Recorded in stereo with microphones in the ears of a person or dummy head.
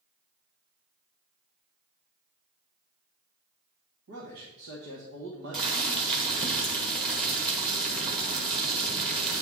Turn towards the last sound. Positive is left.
turn(degrees=-25)  # may be behind; listen again after turning